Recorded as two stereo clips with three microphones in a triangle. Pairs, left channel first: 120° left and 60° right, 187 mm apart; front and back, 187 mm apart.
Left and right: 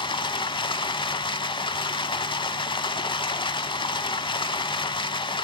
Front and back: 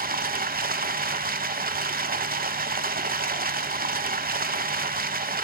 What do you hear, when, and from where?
0.0 s running water: 175° left, 0.7 m